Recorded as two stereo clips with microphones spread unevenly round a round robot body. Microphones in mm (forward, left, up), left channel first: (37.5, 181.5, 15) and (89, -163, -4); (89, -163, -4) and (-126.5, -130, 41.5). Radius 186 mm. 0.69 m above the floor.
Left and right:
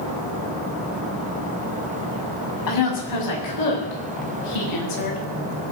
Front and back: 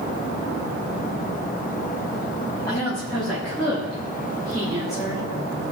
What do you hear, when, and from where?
2.7 s a woman speaking: 75° left, 6 m; by 5.2 s 80° left, 4.5 m